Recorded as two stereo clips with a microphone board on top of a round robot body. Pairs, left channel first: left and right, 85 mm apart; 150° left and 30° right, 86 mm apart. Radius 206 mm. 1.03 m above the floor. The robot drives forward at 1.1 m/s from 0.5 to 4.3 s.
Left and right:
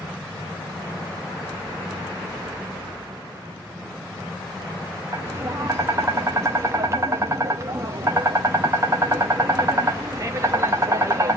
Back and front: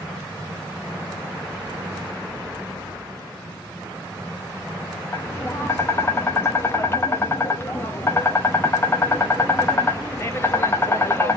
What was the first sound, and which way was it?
Tapping, 145° right.